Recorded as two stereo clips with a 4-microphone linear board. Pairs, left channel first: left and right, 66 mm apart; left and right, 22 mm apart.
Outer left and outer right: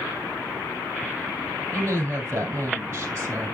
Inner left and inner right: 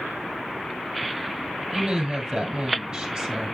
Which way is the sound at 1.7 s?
35° right (ahead or behind).